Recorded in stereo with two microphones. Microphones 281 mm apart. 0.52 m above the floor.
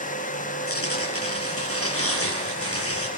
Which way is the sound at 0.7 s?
50° left (ahead or behind).